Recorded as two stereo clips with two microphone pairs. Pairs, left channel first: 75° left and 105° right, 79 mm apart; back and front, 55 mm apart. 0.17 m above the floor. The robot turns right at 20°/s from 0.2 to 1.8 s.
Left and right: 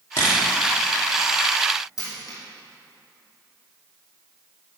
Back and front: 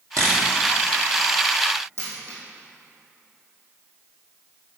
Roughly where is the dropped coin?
Ahead left.